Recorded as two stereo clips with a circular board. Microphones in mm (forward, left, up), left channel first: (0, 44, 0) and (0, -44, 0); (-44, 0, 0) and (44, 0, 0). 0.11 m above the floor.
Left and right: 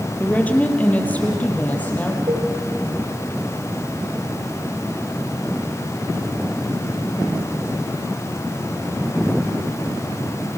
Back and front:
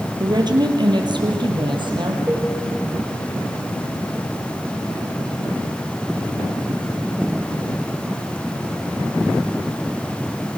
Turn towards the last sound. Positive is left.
turn(degrees=-75)